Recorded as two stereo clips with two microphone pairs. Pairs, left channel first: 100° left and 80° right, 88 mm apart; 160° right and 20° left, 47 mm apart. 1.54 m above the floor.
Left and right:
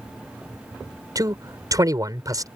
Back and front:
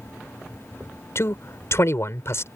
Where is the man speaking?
130° right.